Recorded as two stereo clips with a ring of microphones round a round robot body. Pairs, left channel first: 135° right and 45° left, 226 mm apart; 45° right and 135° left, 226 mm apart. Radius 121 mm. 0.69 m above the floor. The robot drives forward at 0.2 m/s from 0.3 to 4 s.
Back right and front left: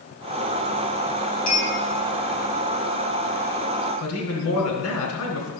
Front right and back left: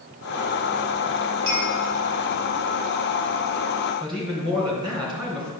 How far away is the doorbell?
No doorbell in this recording.